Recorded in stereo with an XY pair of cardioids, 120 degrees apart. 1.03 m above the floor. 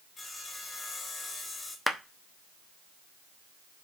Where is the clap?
5° left, 0.9 m.